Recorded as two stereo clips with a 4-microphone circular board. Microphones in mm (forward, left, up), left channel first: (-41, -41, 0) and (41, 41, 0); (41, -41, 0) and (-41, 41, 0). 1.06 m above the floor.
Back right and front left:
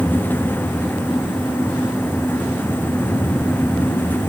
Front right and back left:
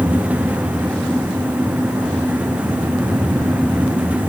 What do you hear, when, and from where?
Only background noise.